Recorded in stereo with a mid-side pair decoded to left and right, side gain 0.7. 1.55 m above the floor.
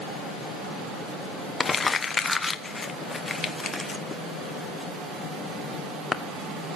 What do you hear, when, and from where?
1.6 s crumpling: 15° left, 1.1 m